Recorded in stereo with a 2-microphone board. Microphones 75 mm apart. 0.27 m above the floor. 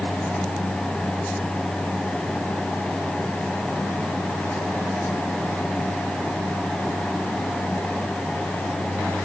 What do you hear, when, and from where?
Only background noise.